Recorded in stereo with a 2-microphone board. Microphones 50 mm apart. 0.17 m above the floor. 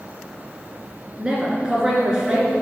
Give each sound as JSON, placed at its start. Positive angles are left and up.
{"t": 1.2, "sound": "a woman speaking", "side_deg": -15, "distance_m": 1.9}